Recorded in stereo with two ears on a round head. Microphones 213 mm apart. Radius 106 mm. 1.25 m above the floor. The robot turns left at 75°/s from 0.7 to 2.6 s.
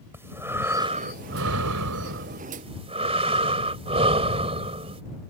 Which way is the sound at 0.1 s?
10° right.